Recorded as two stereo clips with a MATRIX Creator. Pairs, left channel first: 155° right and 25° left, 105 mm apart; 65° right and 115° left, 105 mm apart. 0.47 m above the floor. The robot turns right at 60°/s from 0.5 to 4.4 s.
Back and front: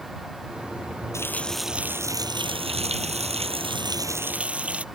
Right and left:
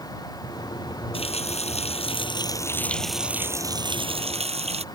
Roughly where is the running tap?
Right.